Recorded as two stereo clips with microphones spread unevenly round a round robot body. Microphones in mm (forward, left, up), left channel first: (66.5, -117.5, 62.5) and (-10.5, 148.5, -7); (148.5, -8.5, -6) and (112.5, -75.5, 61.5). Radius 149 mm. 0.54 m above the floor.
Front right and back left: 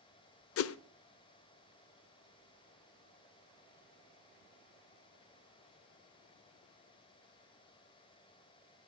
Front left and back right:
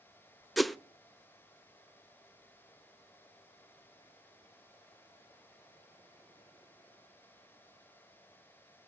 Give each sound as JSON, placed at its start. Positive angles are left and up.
{"t": 0.6, "sound": "a whoosh", "azimuth_deg": -30, "distance_m": 0.6}